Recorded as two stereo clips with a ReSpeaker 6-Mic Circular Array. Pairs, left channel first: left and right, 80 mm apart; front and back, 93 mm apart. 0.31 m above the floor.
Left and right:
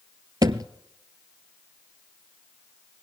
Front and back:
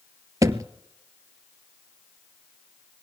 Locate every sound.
0.4 s a thud: 125° right, 0.6 m